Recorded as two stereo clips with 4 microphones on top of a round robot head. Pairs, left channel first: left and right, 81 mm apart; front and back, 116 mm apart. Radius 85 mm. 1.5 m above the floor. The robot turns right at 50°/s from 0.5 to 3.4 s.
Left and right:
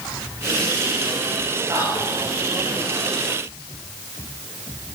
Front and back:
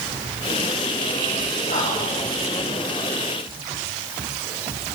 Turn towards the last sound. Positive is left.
turn(degrees=60)